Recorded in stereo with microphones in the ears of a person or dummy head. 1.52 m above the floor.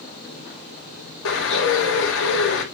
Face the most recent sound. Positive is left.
turn(degrees=75)  # may be behind; listen again after turning